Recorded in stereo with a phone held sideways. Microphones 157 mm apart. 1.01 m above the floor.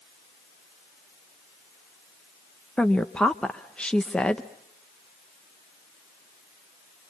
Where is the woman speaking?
5° left (ahead or behind), 0.8 m.